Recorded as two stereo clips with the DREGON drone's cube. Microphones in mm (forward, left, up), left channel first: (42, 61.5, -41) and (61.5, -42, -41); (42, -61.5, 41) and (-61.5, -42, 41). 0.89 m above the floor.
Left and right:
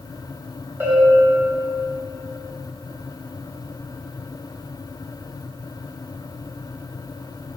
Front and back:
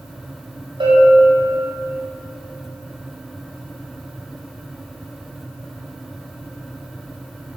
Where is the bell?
150° right, 5 m.